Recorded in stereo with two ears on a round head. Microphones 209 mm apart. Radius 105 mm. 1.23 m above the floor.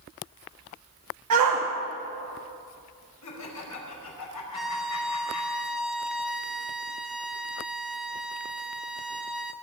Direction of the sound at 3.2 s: 80° left.